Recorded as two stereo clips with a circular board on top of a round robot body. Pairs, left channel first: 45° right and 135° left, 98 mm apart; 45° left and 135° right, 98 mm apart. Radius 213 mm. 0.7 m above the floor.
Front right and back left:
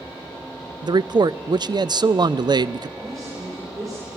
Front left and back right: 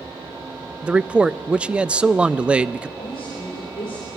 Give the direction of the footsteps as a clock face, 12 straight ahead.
I don't hear footsteps.